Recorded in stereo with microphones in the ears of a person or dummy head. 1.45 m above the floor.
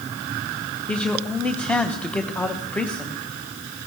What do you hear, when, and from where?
0.9 s a man speaking: 10° left (ahead or behind), 0.8 m